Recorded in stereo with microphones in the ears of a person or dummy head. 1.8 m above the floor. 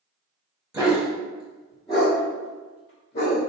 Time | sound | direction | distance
0.7 | a dog barking | 10° right (ahead or behind) | 1.9 m